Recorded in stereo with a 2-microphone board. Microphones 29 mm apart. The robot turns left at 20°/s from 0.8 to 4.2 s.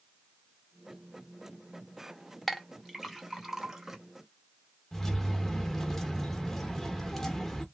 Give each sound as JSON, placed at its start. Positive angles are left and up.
{"t": 2.5, "sound": "a clink", "side_deg": 5, "distance_m": 0.7}
{"t": 4.9, "sound": "keys jangling", "side_deg": 10, "distance_m": 0.6}